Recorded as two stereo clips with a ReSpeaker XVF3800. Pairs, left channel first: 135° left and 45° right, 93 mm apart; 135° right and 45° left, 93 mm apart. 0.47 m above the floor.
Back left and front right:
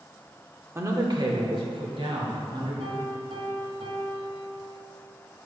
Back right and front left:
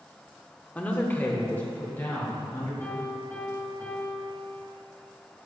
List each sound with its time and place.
0.8 s a man speaking: 75° right, 0.8 m; by 2.7 s 65° right, 3.5 m
2.8 s a piano: 65° right, 2 m